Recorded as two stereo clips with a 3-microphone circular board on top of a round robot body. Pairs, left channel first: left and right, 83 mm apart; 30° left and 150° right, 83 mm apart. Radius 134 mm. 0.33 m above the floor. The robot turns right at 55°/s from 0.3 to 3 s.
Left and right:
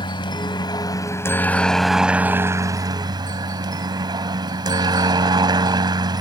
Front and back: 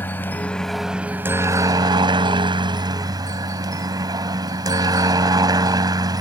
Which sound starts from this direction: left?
A helicopter, at 0.0 s.